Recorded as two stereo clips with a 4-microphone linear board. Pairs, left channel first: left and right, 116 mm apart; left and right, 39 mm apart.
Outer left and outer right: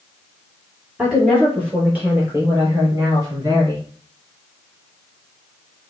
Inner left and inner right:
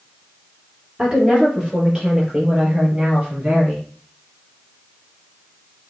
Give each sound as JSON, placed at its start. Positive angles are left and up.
{"t": 1.0, "sound": "a woman speaking", "side_deg": -10, "distance_m": 5.0}